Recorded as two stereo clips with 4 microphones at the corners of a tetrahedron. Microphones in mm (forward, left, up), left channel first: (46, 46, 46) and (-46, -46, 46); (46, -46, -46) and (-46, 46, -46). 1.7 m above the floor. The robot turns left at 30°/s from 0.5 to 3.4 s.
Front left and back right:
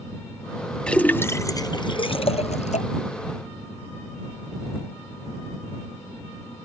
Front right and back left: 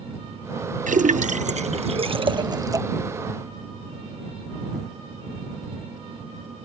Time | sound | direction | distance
0.9 | a splash | 130° left | ?